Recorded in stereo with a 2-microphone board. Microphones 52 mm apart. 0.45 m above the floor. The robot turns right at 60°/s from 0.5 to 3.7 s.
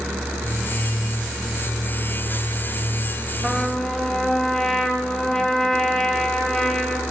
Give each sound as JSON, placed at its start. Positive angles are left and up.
{"t": 3.4, "sound": "a trumpet", "side_deg": -5, "distance_m": 2.0}